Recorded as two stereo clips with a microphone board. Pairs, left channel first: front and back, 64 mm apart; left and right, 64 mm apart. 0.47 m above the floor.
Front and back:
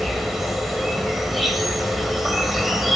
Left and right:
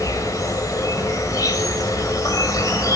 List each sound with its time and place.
0.0 s an insect: 95° left, 1.8 m